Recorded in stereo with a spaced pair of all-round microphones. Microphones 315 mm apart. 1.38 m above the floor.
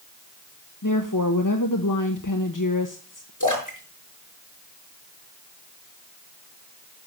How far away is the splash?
About 5 m.